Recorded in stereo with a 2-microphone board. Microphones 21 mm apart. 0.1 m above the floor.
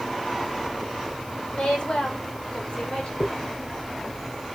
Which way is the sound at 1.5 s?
60° left (ahead or behind).